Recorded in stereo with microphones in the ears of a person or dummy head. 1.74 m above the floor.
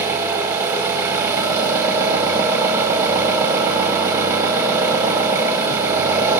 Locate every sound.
0.0 s an engine running: 20° right (ahead or behind), 1.5 m